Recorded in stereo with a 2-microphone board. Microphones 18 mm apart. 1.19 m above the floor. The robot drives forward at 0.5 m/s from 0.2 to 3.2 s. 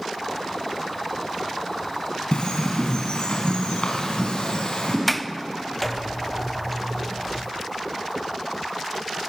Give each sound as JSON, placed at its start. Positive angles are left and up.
{"t": 2.3, "sound": "a bird", "side_deg": 65, "distance_m": 5.0}
{"t": 5.1, "sound": "a sliding door", "side_deg": 0, "distance_m": 0.7}